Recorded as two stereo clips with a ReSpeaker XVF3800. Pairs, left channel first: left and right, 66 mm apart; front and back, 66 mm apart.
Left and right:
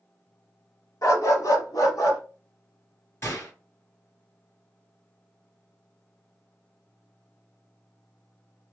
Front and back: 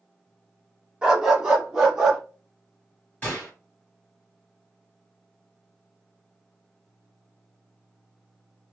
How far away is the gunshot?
About 1.9 m.